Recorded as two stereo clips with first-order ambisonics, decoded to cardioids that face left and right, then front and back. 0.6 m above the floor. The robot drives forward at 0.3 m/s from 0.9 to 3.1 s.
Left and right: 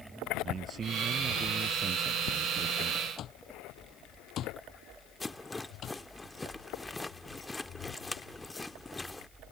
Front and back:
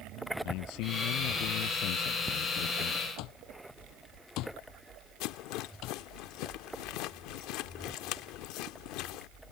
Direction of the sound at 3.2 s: 35° left.